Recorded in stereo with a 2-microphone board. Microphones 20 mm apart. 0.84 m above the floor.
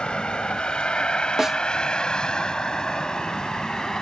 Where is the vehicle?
60° left (ahead or behind); by 4.0 s 40° left (ahead or behind).